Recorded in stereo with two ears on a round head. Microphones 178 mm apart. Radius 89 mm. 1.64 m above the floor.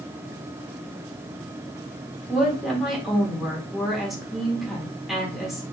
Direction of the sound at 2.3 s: Centre (ahead or behind).